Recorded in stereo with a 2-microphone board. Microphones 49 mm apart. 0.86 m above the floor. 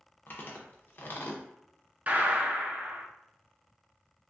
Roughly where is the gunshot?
Right.